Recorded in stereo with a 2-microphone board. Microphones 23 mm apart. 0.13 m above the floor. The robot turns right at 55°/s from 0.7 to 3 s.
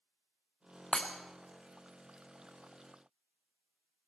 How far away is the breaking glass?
About 1.6 m.